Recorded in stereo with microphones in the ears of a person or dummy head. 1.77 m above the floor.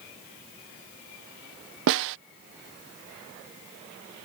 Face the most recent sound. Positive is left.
turn(degrees=-65)  # may be behind; listen again after turning